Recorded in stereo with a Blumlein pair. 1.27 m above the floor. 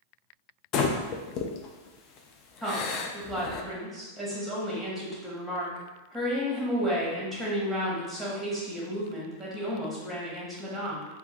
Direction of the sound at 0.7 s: 35° left.